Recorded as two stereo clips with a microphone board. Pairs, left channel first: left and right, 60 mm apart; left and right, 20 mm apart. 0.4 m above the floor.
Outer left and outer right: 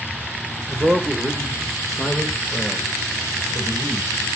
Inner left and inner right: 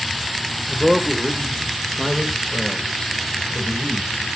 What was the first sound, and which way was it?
A man speaking, 30° right (ahead or behind).